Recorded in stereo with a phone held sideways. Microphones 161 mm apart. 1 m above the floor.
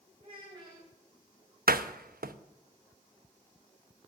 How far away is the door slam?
About 0.7 m.